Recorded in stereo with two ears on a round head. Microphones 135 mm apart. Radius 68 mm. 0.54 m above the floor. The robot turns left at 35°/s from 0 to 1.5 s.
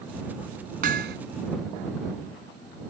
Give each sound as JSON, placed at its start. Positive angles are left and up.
{"t": 0.8, "sound": "hammering", "side_deg": -55}